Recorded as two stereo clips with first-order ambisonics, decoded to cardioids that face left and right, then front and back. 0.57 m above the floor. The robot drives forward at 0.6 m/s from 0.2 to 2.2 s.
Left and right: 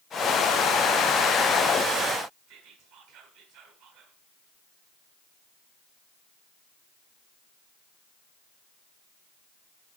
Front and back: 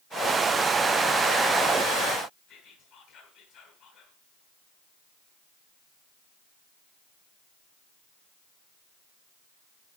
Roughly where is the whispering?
Right.